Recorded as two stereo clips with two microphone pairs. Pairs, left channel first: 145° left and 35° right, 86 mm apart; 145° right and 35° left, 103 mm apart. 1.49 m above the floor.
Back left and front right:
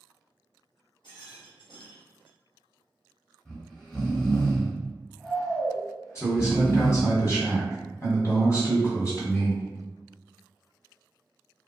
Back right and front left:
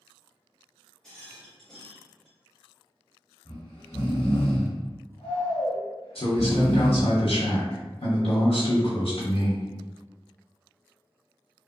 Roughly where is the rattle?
Behind left.